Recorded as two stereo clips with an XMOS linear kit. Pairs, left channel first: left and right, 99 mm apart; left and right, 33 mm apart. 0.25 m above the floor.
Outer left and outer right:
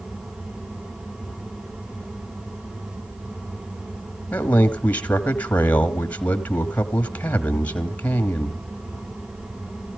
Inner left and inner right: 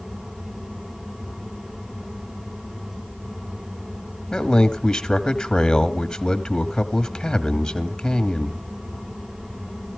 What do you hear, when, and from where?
4.3 s a man speaking: 15° left (ahead or behind), 1.2 m